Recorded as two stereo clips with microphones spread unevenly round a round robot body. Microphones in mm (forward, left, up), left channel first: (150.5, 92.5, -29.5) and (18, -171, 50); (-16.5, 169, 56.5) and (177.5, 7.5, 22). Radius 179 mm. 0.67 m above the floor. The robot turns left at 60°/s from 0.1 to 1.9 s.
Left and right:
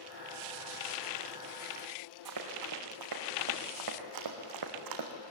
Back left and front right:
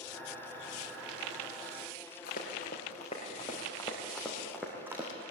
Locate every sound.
2.2 s running footsteps: 155° right, 3.5 m; by 5.1 s 125° right, 2.5 m